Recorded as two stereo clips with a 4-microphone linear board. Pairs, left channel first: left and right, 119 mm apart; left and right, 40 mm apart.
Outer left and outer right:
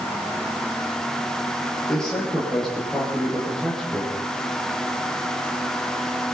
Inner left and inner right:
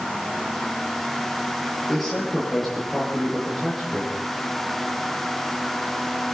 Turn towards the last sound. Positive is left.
turn(degrees=5)  # may be behind; listen again after turning